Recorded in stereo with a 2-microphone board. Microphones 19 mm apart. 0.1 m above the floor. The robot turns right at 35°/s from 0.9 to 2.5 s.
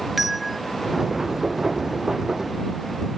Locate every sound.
0.2 s a bell: 5° right (ahead or behind)